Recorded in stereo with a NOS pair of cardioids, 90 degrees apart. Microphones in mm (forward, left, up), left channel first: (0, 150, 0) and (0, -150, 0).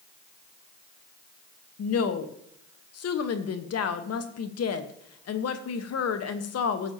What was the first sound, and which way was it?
A woman speaking, 55° left.